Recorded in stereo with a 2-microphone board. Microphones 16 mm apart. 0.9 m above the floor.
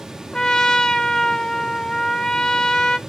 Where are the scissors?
No scissors in this recording.